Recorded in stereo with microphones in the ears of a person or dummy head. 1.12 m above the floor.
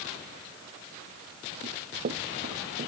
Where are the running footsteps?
45° right (ahead or behind).